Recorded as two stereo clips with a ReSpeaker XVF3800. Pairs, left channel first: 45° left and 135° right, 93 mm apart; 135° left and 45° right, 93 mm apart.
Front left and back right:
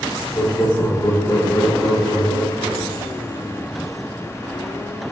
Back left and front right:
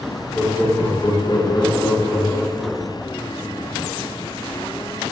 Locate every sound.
0.3 s laughter: 55° left, 1.0 m; by 3.0 s 145° left, 1.6 m